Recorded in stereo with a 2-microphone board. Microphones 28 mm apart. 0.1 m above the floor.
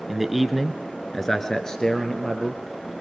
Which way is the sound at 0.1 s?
10° right (ahead or behind).